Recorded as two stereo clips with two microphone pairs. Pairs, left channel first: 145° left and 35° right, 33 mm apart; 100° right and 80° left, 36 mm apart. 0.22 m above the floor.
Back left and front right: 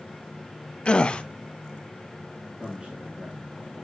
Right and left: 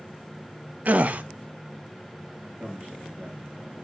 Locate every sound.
0.8 s a gasp: 90° left, 0.6 m
2.6 s a man speaking: 15° left, 3.5 m